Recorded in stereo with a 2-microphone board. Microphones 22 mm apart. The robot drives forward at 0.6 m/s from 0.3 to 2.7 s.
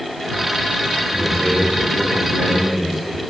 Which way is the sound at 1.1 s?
70° right (ahead or behind).